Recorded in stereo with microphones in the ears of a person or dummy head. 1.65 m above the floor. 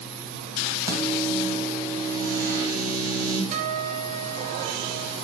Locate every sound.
0.9 s a microwave: 20° right (ahead or behind), 1.8 m
3.5 s a guitar: 40° right (ahead or behind), 1.2 m